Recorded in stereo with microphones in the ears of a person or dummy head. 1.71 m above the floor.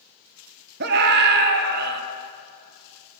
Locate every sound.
0.8 s a scream: 55° right (ahead or behind), 1.4 m